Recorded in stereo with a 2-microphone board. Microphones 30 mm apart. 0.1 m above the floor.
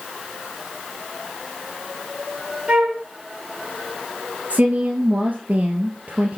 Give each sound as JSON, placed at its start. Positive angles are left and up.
{"t": 2.7, "sound": "a flute", "side_deg": -35, "distance_m": 2.5}
{"t": 4.5, "sound": "a woman speaking", "side_deg": -50, "distance_m": 1.8}